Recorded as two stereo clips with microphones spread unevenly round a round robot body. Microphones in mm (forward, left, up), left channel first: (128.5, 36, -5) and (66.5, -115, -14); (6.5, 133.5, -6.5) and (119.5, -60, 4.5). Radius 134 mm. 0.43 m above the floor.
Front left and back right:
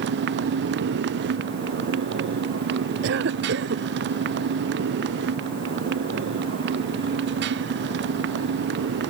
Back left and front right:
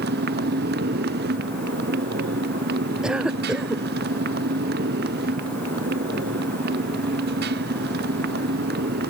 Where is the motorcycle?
115° right.